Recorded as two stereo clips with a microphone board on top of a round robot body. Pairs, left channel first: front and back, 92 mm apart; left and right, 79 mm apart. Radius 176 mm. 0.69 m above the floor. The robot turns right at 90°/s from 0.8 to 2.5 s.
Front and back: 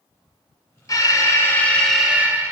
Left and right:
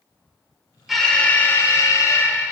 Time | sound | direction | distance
0.9 | an alarm | 5° right | 1.8 m